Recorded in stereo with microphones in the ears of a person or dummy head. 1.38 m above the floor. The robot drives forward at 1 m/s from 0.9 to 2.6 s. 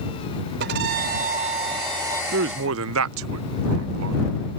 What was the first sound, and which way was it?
A violin, 55° right (ahead or behind).